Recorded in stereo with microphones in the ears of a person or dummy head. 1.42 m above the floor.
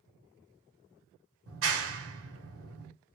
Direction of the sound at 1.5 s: 75° right (ahead or behind).